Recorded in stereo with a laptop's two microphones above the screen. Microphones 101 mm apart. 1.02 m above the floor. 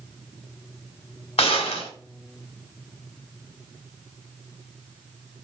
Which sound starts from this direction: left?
A gunshot, at 1.4 s.